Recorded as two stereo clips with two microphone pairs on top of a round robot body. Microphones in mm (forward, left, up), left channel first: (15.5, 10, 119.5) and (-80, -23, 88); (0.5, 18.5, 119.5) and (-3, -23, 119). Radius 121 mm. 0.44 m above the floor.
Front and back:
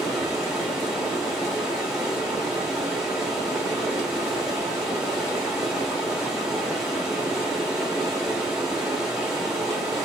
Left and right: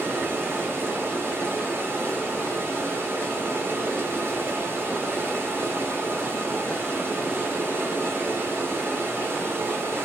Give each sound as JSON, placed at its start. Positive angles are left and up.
{"t": 0.0, "sound": "running water", "azimuth_deg": -85, "distance_m": 1.5}